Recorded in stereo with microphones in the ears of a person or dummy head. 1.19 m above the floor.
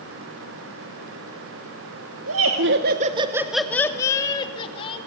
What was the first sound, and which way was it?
Laughter, 70° right (ahead or behind).